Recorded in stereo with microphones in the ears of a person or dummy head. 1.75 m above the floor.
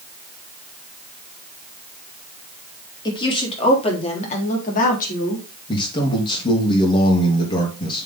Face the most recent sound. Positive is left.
turn(degrees=25)  # may be behind; listen again after turning